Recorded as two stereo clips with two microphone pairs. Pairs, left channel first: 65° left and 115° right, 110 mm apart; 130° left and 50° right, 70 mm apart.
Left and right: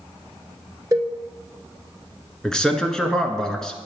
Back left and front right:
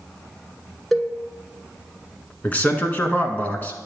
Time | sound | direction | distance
0.9 | a cowbell | 145° right | 1.0 m
2.4 | a man speaking | 140° left | 1.1 m